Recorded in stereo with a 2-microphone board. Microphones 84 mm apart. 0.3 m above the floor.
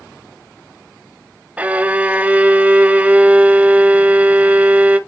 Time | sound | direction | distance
1.6 | a violin | 20° right (ahead or behind) | 0.6 m